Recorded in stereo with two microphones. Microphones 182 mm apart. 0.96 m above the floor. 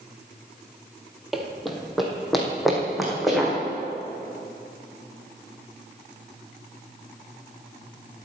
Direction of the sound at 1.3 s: Centre (ahead or behind).